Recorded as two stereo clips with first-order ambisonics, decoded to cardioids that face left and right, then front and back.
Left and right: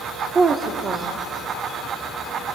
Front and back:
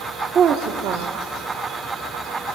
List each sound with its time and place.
0.3 s a woman speaking: 140° right, 0.8 m; by 2.5 s 150° right, 3 m